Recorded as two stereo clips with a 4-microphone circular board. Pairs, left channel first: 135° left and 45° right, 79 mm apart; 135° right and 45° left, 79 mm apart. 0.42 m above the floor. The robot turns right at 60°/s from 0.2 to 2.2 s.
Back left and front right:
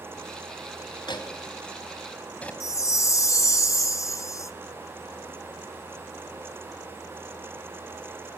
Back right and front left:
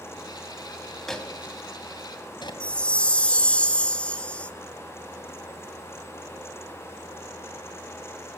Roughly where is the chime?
Behind left.